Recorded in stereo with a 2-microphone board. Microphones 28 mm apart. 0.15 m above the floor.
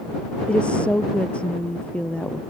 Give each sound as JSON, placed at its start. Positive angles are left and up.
{"t": 0.5, "sound": "a woman speaking", "side_deg": 45}